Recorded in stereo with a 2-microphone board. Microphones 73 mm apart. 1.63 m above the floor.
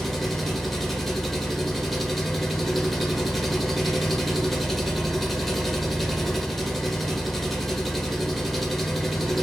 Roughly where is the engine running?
Centre.